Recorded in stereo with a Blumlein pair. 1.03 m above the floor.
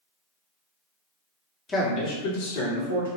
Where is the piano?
No piano in this recording.